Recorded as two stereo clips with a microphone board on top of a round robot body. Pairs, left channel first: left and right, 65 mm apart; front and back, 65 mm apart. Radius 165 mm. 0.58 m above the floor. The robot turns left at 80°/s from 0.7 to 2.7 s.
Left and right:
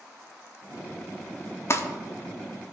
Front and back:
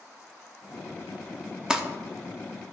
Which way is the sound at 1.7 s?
105° left.